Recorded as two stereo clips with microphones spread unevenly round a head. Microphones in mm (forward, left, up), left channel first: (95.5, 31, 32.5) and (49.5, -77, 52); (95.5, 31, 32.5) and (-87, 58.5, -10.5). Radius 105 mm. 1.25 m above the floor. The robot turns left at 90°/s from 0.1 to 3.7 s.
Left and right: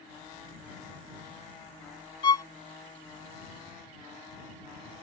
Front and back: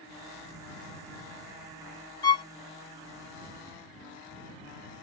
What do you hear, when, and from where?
2.2 s a violin: 25° left; by 2.5 s 5° left